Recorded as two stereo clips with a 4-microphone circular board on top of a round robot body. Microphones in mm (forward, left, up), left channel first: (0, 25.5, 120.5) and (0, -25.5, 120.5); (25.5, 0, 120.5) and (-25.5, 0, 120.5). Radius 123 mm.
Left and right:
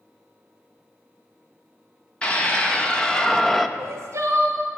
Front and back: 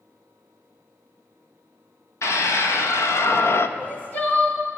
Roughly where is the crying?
Ahead right.